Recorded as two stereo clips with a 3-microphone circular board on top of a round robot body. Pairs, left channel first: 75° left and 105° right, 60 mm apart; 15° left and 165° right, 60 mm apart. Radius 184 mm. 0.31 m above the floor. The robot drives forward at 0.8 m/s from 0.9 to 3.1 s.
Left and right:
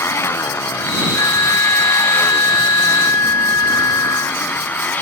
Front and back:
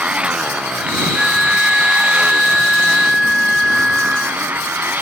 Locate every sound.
0.0 s a motorcycle: 125° left; by 5.0 s 135° left
1.1 s a flute: 105° left; by 4.4 s 110° left